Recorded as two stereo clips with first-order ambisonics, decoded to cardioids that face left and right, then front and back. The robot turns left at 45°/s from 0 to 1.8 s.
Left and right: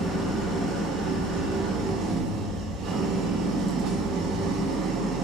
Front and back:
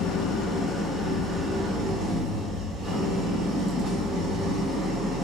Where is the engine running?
40° right, 0.8 m; by 5.2 s 120° right, 0.8 m.